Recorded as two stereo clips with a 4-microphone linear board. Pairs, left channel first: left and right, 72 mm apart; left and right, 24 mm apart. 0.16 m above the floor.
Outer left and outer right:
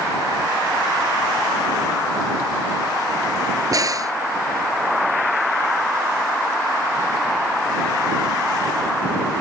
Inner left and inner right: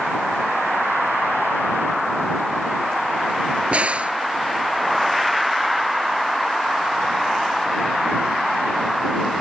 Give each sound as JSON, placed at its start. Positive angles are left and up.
{"t": 3.7, "sound": "a crack", "side_deg": -50}